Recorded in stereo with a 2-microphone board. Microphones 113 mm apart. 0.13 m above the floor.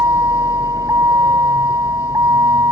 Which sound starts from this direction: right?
A vehicle, at 0.0 s.